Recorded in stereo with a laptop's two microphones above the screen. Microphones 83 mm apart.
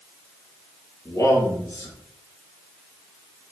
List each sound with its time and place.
1.1 s a man speaking: 35° left (ahead or behind), 3.5 m